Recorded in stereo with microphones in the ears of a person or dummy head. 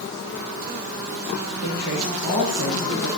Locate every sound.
1.6 s a man speaking: 85° right, 5.5 m